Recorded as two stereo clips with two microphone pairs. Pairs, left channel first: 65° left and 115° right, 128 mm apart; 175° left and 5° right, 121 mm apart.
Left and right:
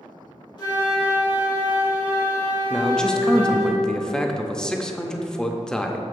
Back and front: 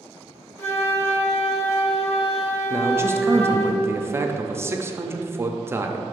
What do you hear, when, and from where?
0.6 s a flute: 110° left, 1.7 m
2.7 s a man speaking: 15° right, 0.5 m